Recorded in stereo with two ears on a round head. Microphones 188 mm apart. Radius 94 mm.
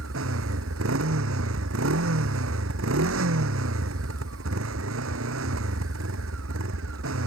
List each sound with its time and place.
0.0 s a motorcycle: 65° right (ahead or behind)